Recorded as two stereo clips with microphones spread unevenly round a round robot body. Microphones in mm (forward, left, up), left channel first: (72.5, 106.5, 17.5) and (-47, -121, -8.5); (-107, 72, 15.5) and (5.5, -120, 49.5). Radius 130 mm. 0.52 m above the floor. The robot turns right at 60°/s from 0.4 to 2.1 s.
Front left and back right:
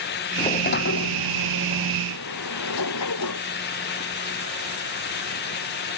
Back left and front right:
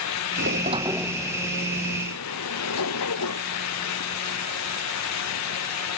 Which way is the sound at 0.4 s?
10° right.